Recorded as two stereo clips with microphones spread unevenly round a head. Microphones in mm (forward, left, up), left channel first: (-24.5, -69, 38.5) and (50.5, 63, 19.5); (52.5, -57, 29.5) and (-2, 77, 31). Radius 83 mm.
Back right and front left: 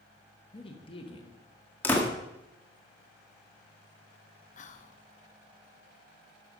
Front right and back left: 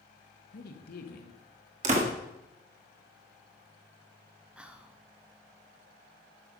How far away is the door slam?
About 1.7 m.